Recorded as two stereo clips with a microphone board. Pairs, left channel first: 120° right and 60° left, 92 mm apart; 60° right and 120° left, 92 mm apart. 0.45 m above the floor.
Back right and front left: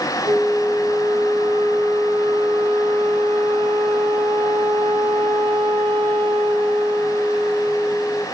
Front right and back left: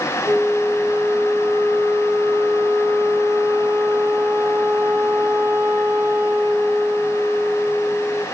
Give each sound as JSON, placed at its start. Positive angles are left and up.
{"t": 0.2, "sound": "a flute", "azimuth_deg": 70, "distance_m": 4.5}